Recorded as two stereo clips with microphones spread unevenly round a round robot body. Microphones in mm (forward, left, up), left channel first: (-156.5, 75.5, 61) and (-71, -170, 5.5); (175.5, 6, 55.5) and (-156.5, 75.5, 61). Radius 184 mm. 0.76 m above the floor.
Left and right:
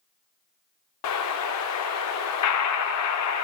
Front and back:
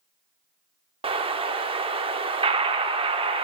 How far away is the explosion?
About 0.7 m.